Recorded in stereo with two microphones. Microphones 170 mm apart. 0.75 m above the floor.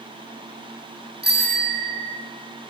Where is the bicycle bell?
75° right (ahead or behind), 6 m.